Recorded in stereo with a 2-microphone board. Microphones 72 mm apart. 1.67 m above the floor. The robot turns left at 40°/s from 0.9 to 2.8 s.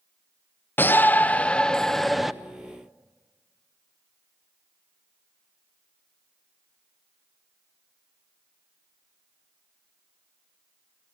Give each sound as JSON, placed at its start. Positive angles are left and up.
{"t": 0.8, "sound": "a shout", "azimuth_deg": 50, "distance_m": 0.6}